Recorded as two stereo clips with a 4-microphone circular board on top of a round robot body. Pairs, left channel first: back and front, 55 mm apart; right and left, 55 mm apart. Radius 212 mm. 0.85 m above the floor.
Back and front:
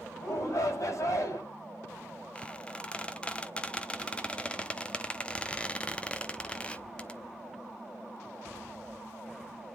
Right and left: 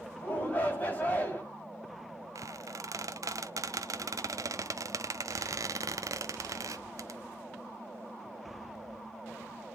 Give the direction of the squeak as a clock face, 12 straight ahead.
8 o'clock.